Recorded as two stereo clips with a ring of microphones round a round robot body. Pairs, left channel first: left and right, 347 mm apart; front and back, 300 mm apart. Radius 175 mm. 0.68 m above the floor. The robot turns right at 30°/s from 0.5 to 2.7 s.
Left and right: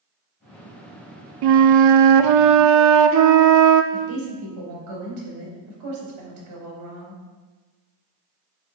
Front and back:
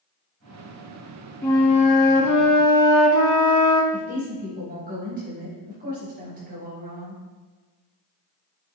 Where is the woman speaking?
115° right, 3.5 m.